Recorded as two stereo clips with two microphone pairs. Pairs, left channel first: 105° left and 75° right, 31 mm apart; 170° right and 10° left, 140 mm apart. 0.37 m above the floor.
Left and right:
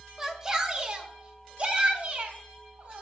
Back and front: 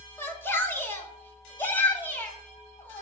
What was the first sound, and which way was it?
A shout, 120° right.